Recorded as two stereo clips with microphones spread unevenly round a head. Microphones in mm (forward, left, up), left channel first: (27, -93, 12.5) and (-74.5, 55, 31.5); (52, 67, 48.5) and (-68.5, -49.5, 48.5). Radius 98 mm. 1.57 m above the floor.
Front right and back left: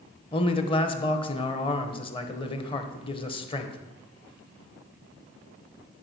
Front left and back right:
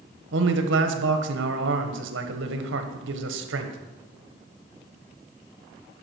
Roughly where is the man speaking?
Behind right.